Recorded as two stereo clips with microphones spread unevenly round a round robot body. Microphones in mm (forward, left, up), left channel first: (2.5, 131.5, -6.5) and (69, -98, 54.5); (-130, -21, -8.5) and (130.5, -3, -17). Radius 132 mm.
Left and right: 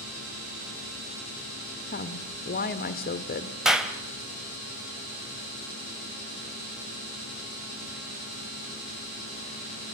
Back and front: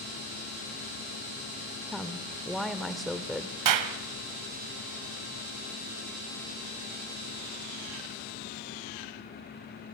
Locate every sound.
1.9 s a woman speaking: 95° left, 1.2 m
3.6 s a clap: 20° left, 2 m